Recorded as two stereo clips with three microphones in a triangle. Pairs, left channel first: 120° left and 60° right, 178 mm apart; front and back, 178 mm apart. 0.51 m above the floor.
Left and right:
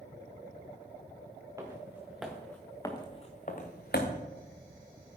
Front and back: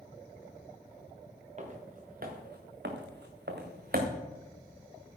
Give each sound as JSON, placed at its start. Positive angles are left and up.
{"t": 1.6, "sound": "footsteps", "azimuth_deg": -135, "distance_m": 2.5}